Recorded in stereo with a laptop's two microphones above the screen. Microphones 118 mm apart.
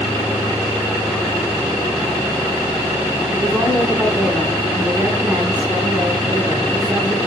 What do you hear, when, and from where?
3.3 s a woman speaking: 15° right (ahead or behind), 7 m